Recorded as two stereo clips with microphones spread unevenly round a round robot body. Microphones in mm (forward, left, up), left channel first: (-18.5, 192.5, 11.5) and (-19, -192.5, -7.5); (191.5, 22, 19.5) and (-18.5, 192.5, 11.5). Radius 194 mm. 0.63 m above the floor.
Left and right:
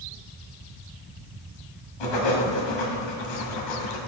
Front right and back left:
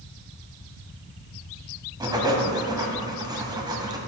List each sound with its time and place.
2.0 s writing: 65° left, 1.6 m